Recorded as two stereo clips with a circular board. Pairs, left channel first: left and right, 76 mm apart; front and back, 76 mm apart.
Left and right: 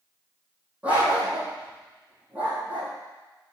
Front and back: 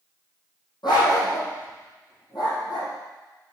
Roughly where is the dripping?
No dripping in this recording.